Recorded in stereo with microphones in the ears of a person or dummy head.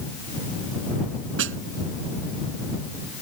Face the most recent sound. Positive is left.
turn(degrees=-80)